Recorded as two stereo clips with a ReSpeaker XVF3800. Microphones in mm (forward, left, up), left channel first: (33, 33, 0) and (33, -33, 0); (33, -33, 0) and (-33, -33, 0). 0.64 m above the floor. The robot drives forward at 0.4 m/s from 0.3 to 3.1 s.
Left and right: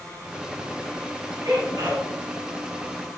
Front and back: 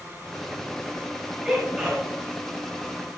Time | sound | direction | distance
1.4 | a sneeze | 110° right | 2.5 m